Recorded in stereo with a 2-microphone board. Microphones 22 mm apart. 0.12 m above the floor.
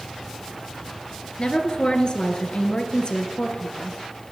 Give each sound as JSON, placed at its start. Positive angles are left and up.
{"t": 1.4, "sound": "a woman speaking", "side_deg": 45, "distance_m": 1.8}